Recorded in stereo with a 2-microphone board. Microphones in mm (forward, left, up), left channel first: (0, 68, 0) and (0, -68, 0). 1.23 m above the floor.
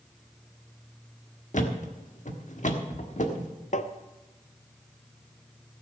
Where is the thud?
60° left (ahead or behind), 1.4 m.